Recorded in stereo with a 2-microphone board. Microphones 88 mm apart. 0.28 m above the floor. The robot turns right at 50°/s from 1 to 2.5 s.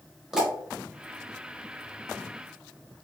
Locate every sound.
0.3 s a pop: 5° right (ahead or behind), 1.1 m